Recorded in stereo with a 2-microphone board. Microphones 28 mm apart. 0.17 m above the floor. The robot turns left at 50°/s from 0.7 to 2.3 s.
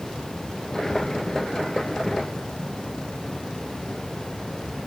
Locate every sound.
Only background noise.